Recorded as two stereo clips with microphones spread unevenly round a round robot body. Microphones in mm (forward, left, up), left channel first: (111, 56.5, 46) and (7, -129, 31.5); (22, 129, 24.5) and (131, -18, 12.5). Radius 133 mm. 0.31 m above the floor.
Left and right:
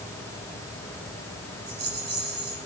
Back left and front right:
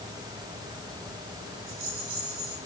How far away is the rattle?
About 6.5 m.